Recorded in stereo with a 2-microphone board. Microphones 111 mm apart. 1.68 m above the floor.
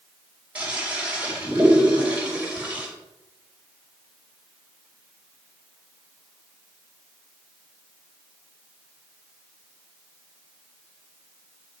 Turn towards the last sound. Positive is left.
turn(degrees=-10)  # may be behind; listen again after turning